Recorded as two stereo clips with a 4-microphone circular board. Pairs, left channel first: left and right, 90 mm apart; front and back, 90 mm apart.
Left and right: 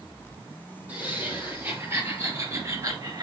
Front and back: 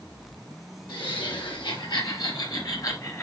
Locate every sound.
0.9 s laughter: 20° right, 5 m; by 3.2 s 50° right, 2.5 m